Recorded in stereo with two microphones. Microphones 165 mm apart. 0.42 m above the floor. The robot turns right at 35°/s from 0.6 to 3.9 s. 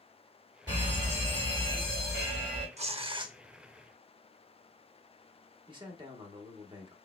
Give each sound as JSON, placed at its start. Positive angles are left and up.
{"t": 0.7, "sound": "a fire alarm", "azimuth_deg": 130, "distance_m": 2.5}
{"t": 2.8, "sound": "tearing paper", "side_deg": -40, "distance_m": 0.5}
{"t": 5.7, "sound": "a man speaking", "side_deg": -30, "distance_m": 0.8}